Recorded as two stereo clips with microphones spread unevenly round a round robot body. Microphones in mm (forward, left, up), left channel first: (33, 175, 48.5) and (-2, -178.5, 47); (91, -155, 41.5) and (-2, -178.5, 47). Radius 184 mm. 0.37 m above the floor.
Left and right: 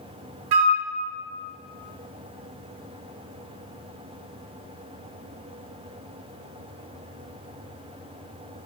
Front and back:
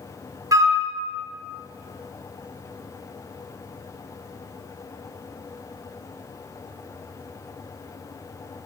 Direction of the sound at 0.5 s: 105° right.